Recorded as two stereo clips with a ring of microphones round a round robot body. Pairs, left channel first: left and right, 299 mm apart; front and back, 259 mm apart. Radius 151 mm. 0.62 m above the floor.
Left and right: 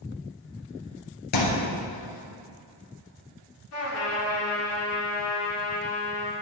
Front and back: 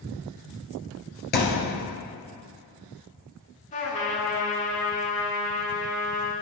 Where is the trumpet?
60° left, 1.8 m.